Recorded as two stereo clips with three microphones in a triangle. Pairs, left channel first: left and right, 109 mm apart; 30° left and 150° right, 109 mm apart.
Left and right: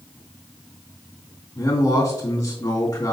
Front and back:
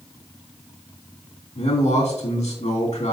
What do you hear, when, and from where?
1.6 s a man speaking: 30° left, 2.5 m